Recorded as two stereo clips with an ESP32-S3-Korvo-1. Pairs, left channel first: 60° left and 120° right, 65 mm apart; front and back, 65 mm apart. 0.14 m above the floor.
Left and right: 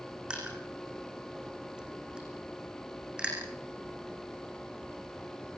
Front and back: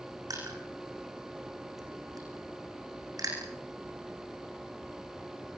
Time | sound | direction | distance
0.3 | crushing | 160° left | 9 m